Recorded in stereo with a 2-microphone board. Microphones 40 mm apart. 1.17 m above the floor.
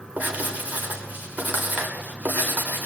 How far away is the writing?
About 4.5 m.